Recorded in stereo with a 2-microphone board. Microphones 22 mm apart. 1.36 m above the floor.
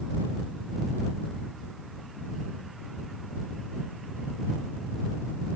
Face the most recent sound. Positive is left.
No sound to turn to.